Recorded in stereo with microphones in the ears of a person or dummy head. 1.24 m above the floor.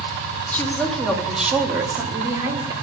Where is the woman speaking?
10° left (ahead or behind), 2 m; by 2.7 s 25° right (ahead or behind), 2.5 m.